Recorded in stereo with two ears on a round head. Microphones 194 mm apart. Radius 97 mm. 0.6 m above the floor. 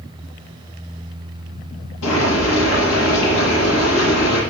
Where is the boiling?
65° left (ahead or behind), 7.5 m.